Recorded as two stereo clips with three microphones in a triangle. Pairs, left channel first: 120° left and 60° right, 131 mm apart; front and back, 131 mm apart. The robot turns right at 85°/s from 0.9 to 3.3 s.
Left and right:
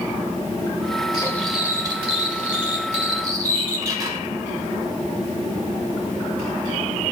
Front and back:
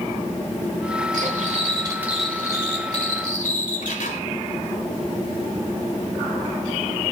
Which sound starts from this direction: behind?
Cutlery clinking, at 1.1 s.